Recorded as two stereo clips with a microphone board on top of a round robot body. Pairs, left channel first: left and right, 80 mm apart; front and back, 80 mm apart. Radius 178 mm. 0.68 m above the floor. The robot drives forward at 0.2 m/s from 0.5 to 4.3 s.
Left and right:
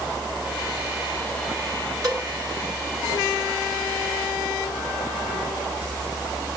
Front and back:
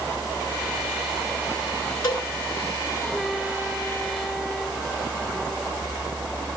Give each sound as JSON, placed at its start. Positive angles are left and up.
{"t": 2.0, "sound": "a cowbell", "azimuth_deg": -45, "distance_m": 6.0}